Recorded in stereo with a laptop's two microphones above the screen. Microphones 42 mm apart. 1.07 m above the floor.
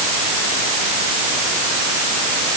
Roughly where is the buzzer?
No buzzer in this recording.